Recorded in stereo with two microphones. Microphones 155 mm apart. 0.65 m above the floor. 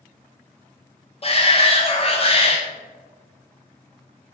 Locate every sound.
1.2 s a shout: 40° left (ahead or behind), 0.7 m